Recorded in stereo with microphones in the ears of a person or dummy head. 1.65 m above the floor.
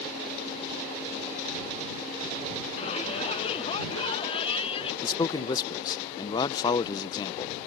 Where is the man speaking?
30° left (ahead or behind).